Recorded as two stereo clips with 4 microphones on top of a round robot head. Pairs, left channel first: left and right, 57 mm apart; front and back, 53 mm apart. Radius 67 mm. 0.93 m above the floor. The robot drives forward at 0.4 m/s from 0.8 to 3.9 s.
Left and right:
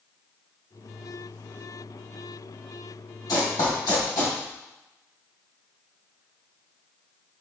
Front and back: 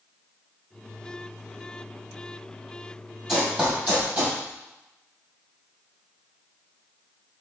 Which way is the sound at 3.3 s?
105° left.